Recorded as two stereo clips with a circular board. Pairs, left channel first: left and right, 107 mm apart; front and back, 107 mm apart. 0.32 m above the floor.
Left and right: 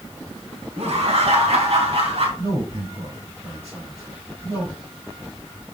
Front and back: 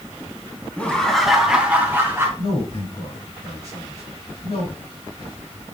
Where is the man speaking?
50° right, 4.5 m.